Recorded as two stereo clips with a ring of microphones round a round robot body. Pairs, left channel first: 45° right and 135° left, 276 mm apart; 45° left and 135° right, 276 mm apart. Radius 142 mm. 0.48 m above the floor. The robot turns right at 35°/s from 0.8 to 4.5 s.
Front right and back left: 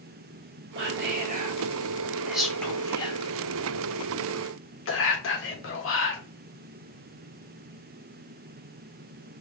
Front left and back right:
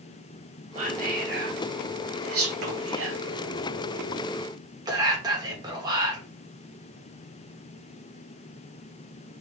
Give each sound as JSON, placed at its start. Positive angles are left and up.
{"t": 0.8, "sound": "whispering", "azimuth_deg": 165, "distance_m": 1.4}